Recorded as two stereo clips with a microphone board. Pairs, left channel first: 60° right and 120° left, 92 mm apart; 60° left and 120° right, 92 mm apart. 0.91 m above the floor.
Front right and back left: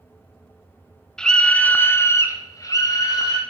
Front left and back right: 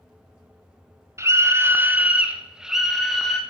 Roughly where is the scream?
Behind right.